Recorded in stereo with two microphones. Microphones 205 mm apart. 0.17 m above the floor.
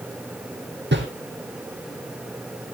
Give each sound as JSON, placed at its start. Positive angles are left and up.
{"t": 0.9, "sound": "a whoosh", "side_deg": -60, "distance_m": 4.0}